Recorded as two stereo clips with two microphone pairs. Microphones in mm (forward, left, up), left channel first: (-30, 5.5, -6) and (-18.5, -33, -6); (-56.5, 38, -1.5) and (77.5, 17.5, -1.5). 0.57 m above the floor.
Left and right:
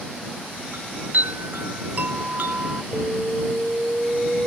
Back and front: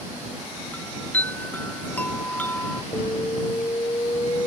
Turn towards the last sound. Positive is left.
turn(degrees=-130)